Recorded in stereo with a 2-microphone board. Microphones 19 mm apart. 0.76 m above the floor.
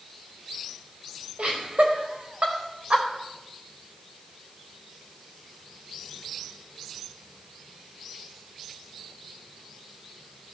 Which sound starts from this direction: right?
Laughter, at 1.4 s.